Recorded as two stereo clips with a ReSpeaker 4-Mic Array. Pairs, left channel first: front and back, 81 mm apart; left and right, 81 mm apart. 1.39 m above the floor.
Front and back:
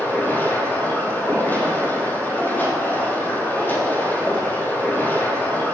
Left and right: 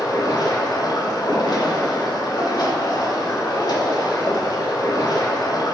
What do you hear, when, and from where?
0.0 s running water: 65° left, 2.5 m